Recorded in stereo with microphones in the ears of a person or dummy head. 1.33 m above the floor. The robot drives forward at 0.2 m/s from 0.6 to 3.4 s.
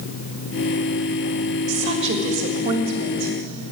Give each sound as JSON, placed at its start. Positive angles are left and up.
{"t": 1.7, "sound": "a woman speaking", "side_deg": -30, "distance_m": 1.4}